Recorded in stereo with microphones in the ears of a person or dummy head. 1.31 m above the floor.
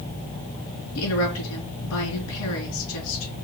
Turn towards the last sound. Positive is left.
turn(degrees=70)  # may be behind; listen again after turning